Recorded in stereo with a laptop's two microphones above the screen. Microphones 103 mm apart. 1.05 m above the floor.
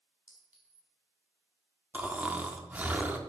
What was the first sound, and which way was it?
A clink, 15° right (ahead or behind).